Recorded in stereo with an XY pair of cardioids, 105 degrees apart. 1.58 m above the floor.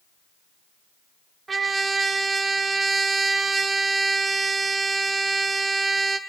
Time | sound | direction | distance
1.5 | a trumpet | 30° right | 1.7 m